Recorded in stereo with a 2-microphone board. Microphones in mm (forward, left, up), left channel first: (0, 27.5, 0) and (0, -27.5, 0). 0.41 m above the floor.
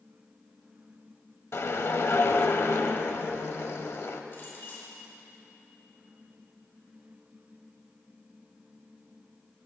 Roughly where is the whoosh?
Left.